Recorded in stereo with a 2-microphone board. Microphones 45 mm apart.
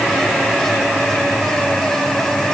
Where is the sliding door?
I don't hear a sliding door.